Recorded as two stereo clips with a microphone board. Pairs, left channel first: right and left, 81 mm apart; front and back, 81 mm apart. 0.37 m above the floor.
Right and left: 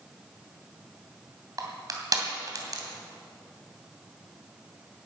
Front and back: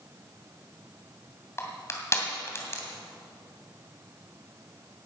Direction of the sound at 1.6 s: 55° left.